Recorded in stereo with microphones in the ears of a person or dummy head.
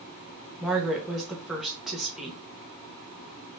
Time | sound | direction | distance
0.6 | a woman speaking | centre (ahead or behind) | 0.9 m